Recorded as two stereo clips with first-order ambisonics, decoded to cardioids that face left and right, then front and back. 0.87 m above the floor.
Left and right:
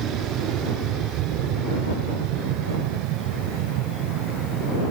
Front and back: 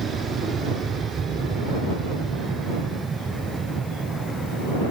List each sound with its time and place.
0.0 s an aircraft: 120° right; by 4.9 s 105° right